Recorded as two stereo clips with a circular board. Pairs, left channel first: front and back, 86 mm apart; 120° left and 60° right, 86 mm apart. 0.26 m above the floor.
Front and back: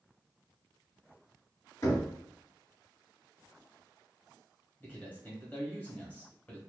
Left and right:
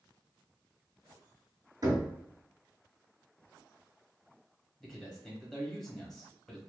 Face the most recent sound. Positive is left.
turn(degrees=40)